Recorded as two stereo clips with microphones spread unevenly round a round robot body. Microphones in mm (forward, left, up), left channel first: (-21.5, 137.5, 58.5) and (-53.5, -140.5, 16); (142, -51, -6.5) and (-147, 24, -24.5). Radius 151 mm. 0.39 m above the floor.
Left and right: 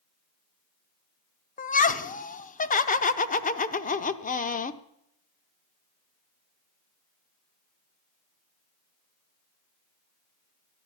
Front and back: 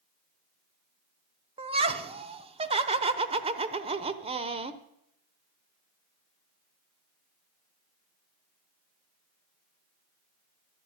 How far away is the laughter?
About 0.8 m.